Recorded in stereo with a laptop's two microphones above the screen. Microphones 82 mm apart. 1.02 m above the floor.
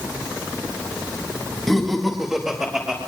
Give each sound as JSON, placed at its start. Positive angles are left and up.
{"t": 1.7, "sound": "laughter", "side_deg": 5, "distance_m": 1.5}